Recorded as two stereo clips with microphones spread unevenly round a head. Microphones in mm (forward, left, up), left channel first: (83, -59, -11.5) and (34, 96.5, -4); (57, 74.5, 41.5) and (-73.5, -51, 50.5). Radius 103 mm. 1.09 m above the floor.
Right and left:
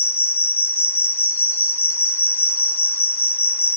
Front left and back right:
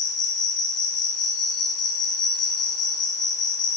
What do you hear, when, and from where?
0.0 s an insect: 5° right, 0.8 m